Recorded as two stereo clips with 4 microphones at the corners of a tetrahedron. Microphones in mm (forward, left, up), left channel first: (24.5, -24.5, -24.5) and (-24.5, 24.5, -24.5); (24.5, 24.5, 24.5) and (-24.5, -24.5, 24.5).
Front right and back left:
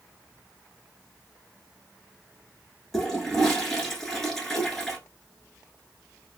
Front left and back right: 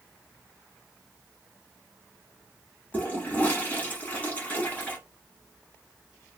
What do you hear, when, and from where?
2.9 s a toilet flushing: 30° left, 1.0 m